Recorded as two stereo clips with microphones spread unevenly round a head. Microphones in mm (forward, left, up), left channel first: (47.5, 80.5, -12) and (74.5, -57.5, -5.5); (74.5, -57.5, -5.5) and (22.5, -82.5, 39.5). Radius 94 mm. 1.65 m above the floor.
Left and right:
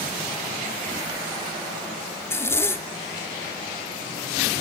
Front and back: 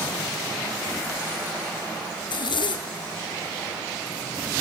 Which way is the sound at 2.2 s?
30° left.